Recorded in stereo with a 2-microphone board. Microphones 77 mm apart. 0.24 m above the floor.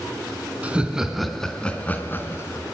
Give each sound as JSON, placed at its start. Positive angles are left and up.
{"t": 0.6, "sound": "laughter", "side_deg": -15, "distance_m": 2.5}